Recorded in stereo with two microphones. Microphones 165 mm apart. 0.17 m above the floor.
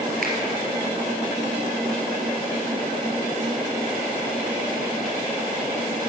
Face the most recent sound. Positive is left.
turn(degrees=-65)  # may be behind; listen again after turning